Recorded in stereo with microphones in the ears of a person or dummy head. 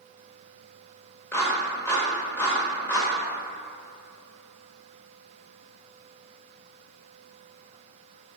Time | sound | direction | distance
1.3 | a clap | 10° left (ahead or behind) | 1.5 m